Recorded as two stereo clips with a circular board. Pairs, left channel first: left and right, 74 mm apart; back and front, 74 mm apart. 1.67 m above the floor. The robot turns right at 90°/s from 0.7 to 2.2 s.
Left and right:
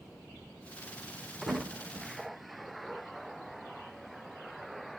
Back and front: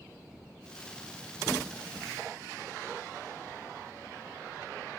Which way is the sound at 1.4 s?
110° right.